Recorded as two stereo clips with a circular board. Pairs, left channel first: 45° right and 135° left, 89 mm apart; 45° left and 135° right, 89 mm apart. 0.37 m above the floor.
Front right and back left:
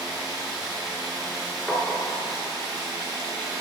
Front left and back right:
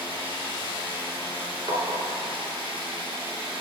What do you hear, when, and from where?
0.0 s running water: 140° right, 3.5 m
1.7 s tapping: 120° right, 1.3 m